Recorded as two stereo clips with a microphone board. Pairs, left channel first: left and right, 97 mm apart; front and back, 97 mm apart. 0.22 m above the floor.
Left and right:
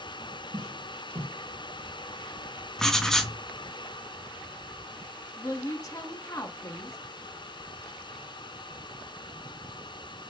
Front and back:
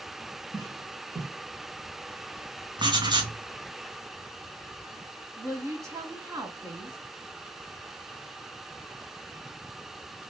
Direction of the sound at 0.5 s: 130° right.